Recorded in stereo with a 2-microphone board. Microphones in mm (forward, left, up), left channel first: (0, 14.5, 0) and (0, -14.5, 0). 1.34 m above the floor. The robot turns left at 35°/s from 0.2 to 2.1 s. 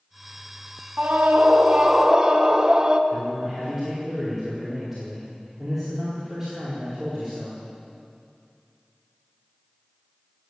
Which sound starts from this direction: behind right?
A scream, at 1.0 s.